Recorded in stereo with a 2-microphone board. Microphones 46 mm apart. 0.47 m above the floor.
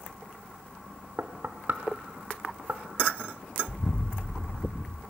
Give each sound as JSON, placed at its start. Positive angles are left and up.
{"t": 1.2, "sound": "knocking", "side_deg": -50, "distance_m": 0.6}
{"t": 3.7, "sound": "an explosion", "side_deg": 65, "distance_m": 0.9}